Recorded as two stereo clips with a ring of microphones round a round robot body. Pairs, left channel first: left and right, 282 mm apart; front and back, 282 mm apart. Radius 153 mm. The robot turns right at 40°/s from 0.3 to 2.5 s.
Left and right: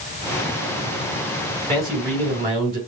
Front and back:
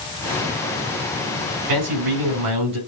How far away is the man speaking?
About 4 m.